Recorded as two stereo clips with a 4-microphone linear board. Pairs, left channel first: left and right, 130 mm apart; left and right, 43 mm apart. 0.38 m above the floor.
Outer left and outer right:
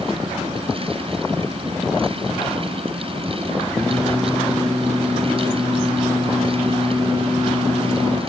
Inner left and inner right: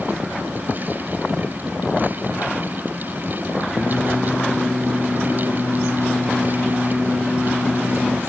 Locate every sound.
3.7 s singing: 10° left (ahead or behind), 4.5 m